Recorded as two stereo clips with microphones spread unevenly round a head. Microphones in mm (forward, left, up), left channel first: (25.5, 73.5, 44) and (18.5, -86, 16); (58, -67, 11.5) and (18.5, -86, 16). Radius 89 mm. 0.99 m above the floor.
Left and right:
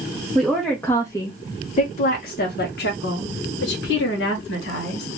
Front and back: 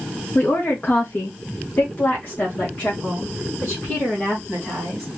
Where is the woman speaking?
10° right, 1.0 m; by 5.1 s 115° left, 1.9 m.